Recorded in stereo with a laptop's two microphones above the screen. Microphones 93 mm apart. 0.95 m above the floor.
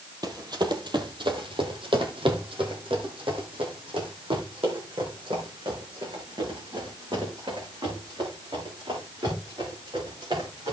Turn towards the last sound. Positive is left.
turn(degrees=-60)  # may be behind; listen again after turning